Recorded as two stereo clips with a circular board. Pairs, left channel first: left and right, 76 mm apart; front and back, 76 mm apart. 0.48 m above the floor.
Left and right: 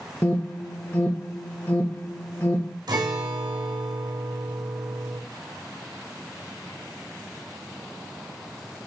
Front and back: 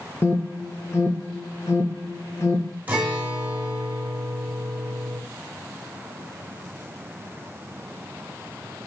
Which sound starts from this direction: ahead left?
An alarm, at 0.2 s.